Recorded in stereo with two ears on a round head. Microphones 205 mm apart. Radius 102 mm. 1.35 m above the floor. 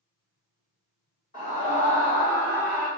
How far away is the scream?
About 1.4 m.